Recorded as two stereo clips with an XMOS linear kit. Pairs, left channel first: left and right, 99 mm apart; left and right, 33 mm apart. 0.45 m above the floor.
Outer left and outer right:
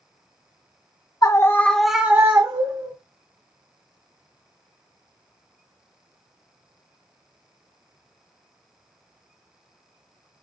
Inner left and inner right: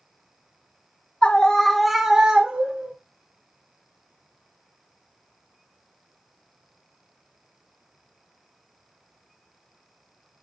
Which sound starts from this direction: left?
A scream, at 1.2 s.